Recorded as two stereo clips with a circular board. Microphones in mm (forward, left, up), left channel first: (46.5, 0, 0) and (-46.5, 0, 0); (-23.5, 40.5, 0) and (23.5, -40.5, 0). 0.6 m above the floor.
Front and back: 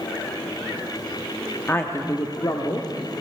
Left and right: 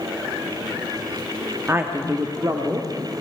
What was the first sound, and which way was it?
A woman speaking, 30° right.